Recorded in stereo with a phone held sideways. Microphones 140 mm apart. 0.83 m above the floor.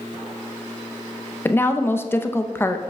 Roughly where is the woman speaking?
Centre.